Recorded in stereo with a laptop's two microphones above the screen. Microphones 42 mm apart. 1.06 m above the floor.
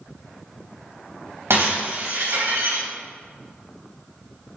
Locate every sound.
1.5 s breaking glass: 75° right (ahead or behind), 3 m